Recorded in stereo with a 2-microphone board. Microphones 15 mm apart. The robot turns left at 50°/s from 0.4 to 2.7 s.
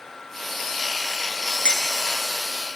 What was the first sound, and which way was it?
Dishes clattering, 75° left (ahead or behind).